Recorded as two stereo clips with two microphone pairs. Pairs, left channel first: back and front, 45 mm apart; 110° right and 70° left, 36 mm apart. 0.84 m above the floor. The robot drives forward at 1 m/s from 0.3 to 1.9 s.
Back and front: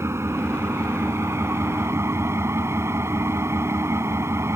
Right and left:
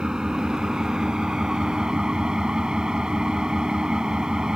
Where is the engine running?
5° left.